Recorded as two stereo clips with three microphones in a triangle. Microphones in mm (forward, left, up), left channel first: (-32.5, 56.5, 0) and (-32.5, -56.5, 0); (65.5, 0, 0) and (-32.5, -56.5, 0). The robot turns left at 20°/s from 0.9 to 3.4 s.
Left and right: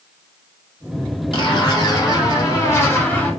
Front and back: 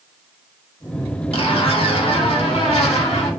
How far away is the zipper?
About 0.9 m.